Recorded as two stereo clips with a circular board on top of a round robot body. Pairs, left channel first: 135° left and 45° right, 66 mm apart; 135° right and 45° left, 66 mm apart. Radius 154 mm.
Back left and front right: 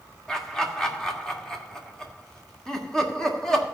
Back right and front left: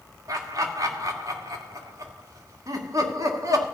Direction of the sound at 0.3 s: 55° left.